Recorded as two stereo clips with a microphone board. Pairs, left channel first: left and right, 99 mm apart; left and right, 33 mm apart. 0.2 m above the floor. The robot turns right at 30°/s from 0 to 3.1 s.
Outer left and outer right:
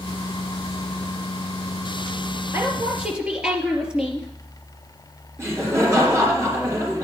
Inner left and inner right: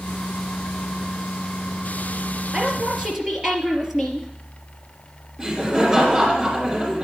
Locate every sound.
2.5 s a woman speaking: 25° right (ahead or behind), 3.5 m; by 4.3 s 10° right (ahead or behind), 3.5 m
5.4 s laughter: 30° right (ahead or behind), 3 m